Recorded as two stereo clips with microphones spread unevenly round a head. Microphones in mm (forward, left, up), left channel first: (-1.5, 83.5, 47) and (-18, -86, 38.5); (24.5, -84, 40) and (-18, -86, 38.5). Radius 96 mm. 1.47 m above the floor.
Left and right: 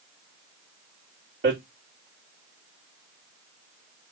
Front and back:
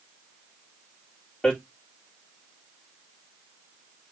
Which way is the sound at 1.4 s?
65° right.